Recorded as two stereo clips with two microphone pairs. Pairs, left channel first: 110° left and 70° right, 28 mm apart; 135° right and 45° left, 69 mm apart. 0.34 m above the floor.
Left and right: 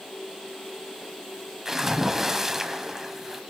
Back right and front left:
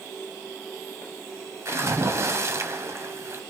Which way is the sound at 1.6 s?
5° left.